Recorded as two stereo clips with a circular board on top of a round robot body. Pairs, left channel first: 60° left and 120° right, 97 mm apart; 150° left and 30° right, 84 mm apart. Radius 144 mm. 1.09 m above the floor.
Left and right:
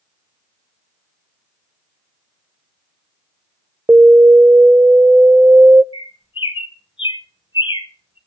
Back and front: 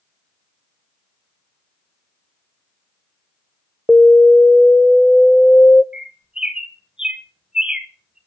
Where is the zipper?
I don't hear a zipper.